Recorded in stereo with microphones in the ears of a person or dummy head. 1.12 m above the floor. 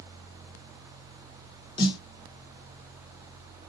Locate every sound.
1.8 s a snare drum: 25° left (ahead or behind), 0.8 m